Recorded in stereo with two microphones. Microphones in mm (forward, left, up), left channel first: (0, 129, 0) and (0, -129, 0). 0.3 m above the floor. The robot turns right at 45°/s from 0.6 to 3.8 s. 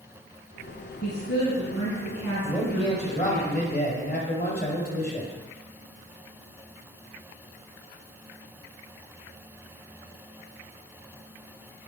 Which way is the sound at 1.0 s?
45° left.